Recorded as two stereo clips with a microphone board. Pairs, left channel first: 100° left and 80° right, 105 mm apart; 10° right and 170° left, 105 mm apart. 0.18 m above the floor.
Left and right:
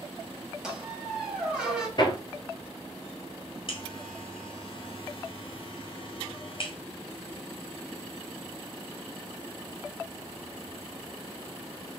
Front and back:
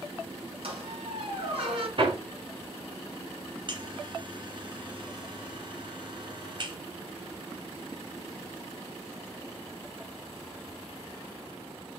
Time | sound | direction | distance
0.6 | a squeak | 165° right | 1.7 m
2.0 | hammering | 140° left | 1.1 m
3.7 | a buzzer | 130° left | 1.1 m